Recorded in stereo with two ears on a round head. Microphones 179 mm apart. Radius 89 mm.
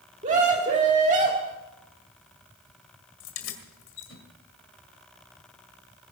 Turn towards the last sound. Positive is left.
turn(degrees=70)  # may be behind; listen again after turning